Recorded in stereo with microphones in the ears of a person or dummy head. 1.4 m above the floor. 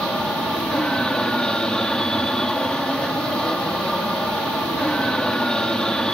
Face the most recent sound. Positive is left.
turn(degrees=5)  # may be behind; listen again after turning